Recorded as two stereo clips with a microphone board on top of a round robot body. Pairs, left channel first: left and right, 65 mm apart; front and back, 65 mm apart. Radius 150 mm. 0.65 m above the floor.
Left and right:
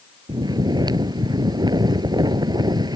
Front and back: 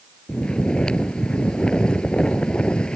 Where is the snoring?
75° right.